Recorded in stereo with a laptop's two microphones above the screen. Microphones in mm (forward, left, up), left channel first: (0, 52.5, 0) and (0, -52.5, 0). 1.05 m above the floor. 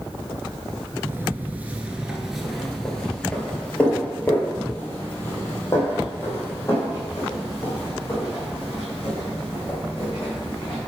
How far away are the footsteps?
About 1.1 m.